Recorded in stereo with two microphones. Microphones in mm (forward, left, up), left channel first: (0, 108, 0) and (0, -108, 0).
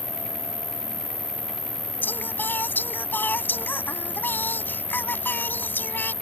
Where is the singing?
10° left (ahead or behind).